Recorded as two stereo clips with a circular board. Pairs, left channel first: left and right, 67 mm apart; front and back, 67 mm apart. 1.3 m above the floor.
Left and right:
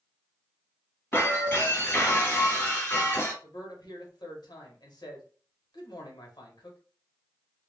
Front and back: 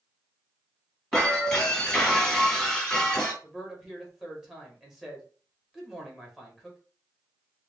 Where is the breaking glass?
80° left, 1.3 m.